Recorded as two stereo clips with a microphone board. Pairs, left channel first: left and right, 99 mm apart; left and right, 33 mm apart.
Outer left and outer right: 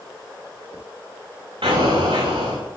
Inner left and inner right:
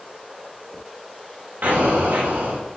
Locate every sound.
1.6 s an explosion: 65° right (ahead or behind), 8 m